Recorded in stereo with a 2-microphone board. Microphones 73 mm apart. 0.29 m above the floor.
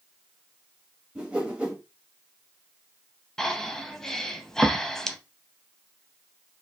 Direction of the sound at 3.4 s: 5° left (ahead or behind).